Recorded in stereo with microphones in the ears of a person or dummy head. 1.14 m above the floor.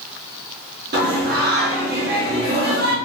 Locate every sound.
0.9 s singing: 50° right (ahead or behind), 1.1 m